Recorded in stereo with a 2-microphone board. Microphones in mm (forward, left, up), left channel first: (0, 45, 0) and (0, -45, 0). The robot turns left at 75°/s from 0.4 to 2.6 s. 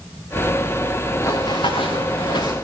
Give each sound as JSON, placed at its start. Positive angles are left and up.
{"t": 1.2, "sound": "running footsteps", "side_deg": 30, "distance_m": 2.5}